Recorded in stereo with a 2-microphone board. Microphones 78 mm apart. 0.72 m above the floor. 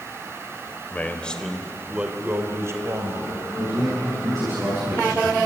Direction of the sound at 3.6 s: 50° right (ahead or behind).